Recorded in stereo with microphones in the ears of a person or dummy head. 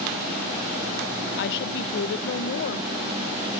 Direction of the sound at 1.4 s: 65° left (ahead or behind).